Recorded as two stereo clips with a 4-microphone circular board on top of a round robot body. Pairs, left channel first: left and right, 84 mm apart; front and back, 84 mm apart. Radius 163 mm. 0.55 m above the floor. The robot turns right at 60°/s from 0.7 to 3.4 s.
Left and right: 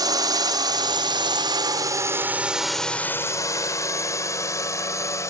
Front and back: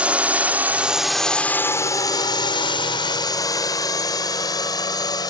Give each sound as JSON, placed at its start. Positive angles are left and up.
{"t": 0.0, "sound": "a drone", "azimuth_deg": -110}